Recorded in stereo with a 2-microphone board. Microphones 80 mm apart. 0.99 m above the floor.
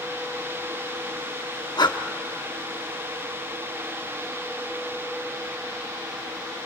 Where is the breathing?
60° left (ahead or behind), 0.8 m.